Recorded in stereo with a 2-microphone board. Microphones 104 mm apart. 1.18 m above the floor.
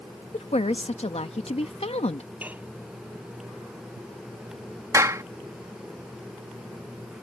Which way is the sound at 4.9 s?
30° right (ahead or behind).